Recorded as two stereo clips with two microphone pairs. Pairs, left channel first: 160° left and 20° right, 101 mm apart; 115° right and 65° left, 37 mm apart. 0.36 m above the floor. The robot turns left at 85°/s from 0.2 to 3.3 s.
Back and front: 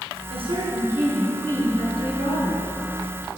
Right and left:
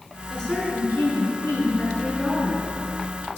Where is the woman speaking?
35° right, 4.5 m; by 2.7 s 125° left, 4.5 m.